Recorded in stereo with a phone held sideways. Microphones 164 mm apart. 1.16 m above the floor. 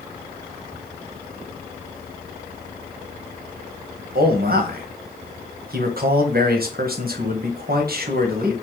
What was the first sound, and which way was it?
A man speaking, 60° right (ahead or behind).